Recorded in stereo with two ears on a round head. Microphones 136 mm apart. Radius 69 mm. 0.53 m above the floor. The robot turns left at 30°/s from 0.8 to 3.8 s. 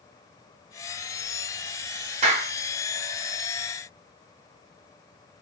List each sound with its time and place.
2.2 s a clap: 45° right (ahead or behind), 1.2 m